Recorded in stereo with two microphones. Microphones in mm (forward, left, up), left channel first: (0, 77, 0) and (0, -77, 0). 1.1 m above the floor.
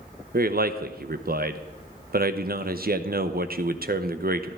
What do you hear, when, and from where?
0.3 s a man speaking: 70° right (ahead or behind), 0.7 m